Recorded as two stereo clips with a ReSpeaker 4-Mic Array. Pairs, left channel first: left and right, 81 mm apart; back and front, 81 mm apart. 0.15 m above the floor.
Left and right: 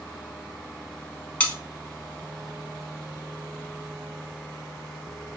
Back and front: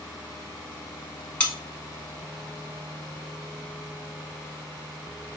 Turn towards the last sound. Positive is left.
turn(degrees=130)